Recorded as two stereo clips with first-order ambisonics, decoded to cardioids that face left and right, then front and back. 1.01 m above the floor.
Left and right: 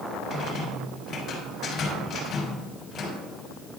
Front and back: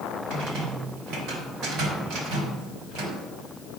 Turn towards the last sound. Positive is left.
turn(degrees=150)